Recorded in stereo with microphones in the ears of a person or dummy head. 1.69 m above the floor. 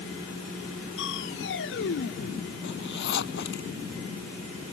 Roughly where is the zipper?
Left.